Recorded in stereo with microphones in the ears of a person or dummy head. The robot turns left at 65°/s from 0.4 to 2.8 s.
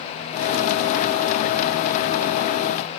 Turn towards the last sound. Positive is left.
No sound to turn to.